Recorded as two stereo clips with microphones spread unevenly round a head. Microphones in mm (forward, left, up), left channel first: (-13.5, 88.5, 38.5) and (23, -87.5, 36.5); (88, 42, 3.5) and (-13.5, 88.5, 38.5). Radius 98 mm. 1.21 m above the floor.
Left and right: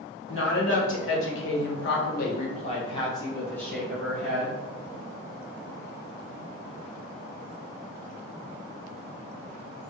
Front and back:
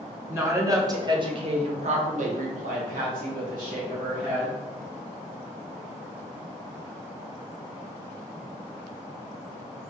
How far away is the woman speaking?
About 1.3 m.